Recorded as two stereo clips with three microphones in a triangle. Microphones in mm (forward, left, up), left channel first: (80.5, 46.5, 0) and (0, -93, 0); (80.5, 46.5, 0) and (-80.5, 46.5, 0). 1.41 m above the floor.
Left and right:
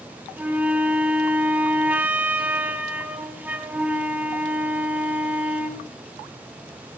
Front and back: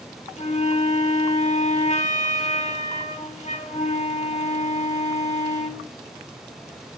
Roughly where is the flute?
Ahead right.